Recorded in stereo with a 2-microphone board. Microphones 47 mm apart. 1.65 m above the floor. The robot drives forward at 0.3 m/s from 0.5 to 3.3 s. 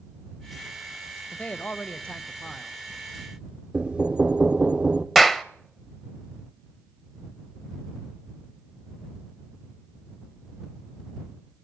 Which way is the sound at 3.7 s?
25° right (ahead or behind).